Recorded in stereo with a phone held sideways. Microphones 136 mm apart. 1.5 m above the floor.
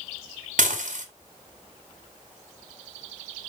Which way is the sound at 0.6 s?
65° right (ahead or behind).